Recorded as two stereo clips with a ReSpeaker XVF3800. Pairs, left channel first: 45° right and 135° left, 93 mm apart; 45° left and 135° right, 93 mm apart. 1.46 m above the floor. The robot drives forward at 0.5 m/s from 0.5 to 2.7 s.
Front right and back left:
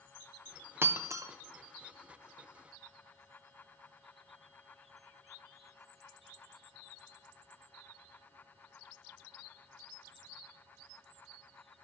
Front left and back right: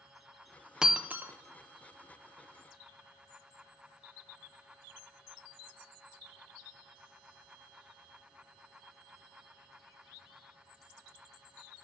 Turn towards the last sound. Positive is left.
turn(degrees=175)